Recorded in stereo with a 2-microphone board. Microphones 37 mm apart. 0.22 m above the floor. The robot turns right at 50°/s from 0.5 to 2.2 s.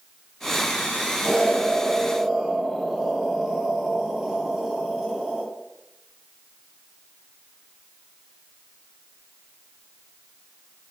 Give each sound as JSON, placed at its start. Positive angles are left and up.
{"t": 1.2, "sound": "an explosion", "side_deg": 10, "distance_m": 0.7}